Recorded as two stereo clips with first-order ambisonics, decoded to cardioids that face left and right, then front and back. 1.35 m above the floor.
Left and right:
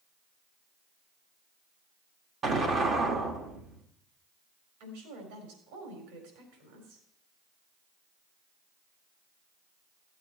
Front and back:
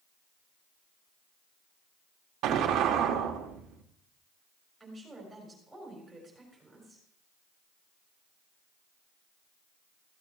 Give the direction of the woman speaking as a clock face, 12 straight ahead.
3 o'clock.